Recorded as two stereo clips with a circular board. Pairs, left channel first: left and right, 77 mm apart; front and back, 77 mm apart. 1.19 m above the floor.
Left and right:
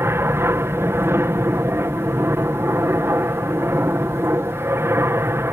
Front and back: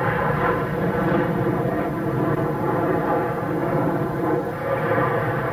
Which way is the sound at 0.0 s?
85° right.